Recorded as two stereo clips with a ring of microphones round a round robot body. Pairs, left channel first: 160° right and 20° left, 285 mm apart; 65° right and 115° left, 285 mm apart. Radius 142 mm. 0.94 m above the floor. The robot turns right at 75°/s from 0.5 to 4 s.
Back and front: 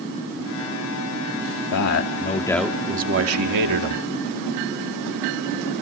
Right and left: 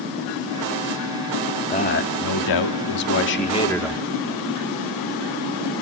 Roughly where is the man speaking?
Behind right.